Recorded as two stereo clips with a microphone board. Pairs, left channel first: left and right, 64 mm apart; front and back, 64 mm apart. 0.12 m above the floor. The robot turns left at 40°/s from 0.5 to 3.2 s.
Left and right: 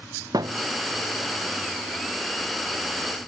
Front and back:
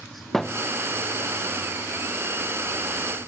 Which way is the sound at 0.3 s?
85° right.